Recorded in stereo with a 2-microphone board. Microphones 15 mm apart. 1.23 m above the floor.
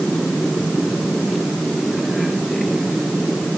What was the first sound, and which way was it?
Only background noise.